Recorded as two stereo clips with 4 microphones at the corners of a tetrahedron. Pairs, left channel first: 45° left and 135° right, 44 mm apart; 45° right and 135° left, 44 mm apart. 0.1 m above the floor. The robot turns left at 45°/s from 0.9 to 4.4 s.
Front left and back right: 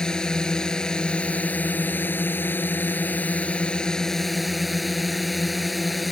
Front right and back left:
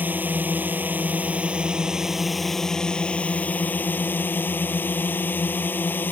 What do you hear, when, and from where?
0.0 s a drone: 110° left; by 6.1 s 45° right